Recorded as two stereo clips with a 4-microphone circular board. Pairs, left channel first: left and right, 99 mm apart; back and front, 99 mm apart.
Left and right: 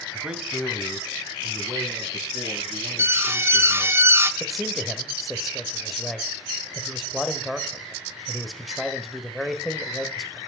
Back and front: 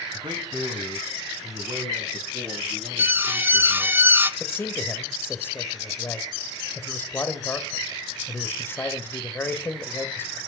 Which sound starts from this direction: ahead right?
An alarm, at 3.0 s.